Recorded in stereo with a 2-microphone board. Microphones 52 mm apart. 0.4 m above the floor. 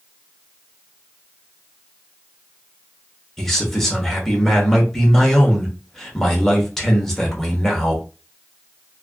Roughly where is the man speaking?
Centre.